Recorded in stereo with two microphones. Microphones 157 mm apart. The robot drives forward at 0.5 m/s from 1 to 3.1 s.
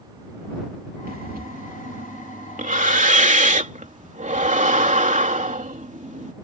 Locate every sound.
1.1 s breathing: 70° right (ahead or behind); by 6.3 s 55° right (ahead or behind)